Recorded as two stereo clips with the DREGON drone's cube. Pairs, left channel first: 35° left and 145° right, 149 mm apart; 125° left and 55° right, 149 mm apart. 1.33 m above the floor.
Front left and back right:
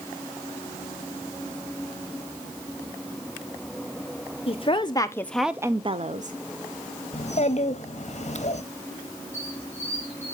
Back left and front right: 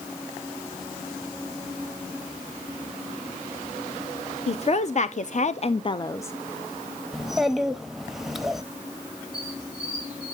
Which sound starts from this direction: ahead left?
A child speaking, at 7.1 s.